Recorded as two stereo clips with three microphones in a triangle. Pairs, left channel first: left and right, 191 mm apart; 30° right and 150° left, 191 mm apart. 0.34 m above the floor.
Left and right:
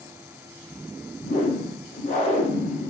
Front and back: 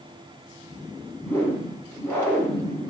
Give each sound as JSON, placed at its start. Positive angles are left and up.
{"t": 1.2, "sound": "a whoosh", "azimuth_deg": 45, "distance_m": 1.3}